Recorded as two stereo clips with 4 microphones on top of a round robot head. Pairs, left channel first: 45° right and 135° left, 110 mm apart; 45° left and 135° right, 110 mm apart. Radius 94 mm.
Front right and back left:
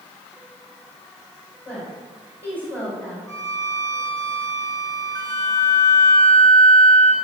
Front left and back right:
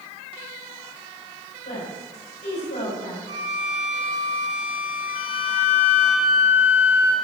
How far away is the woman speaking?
About 6 m.